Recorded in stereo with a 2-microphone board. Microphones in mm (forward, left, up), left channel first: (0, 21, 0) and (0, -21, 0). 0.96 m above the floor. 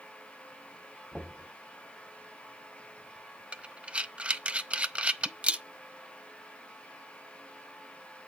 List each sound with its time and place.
1.1 s knocking: 20° right (ahead or behind), 5 m
3.5 s breathing: 30° right (ahead or behind), 0.5 m